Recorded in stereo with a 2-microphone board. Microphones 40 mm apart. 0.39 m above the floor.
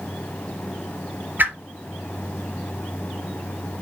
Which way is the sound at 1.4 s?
55° right (ahead or behind).